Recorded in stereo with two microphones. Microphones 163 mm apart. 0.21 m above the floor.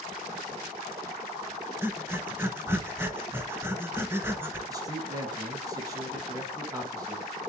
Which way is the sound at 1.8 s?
15° right (ahead or behind).